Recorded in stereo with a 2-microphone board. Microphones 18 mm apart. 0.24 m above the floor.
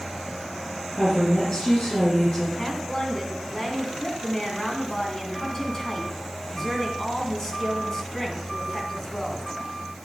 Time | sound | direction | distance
0.9 | a woman speaking | 75° left (ahead or behind) | 4.5 m
2.6 | a woman speaking | 30° left (ahead or behind) | 2.5 m